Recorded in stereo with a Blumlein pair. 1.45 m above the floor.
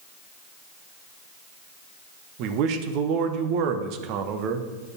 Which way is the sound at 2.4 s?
40° right.